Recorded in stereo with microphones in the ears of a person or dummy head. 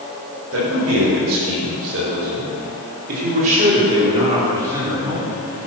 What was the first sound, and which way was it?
A man speaking, 85° right.